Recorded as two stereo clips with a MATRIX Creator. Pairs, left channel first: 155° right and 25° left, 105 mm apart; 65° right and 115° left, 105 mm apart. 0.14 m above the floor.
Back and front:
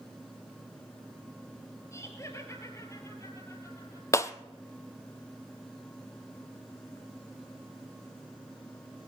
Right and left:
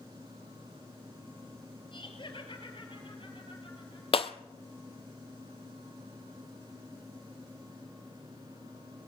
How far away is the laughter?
About 3 m.